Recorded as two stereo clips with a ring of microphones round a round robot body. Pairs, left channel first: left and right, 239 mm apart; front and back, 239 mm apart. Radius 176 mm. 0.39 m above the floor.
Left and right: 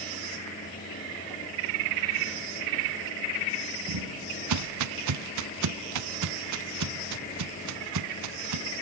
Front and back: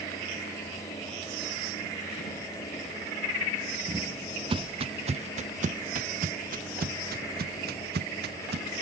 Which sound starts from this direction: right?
Footsteps, at 3.9 s.